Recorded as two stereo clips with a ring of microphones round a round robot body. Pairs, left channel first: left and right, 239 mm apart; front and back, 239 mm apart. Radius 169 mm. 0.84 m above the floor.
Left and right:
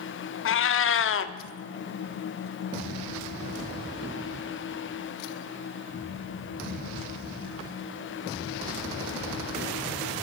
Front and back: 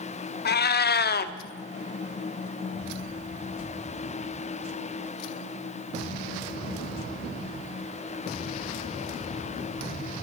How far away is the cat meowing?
About 0.7 m.